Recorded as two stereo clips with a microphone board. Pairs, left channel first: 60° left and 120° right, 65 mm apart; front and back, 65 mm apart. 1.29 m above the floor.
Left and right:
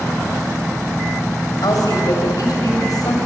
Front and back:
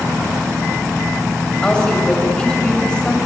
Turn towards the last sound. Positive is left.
turn(degrees=80)